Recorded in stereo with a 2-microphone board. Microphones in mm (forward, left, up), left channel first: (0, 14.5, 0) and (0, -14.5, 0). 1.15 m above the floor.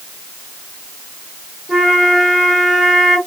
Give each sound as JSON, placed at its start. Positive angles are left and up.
{"t": 1.7, "sound": "a flute", "side_deg": -15, "distance_m": 2.5}